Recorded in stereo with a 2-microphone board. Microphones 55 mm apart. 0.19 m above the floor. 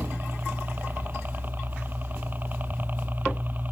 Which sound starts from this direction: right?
A helicopter, at 0.0 s.